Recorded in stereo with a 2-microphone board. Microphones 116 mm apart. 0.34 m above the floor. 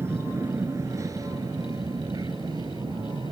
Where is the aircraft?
20° right (ahead or behind); by 3.3 s 40° right (ahead or behind).